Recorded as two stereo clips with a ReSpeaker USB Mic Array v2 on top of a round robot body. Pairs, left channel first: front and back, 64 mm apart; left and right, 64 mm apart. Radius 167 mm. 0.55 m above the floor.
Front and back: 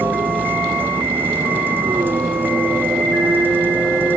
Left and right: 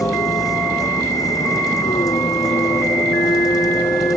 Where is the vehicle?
120° left.